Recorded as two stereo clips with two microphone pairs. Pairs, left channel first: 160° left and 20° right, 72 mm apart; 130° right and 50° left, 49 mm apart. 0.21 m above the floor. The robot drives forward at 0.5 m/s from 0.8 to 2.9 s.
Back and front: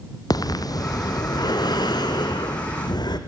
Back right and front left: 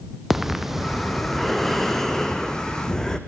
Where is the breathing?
135° left, 1.4 m; by 3.2 s 155° left, 2.5 m.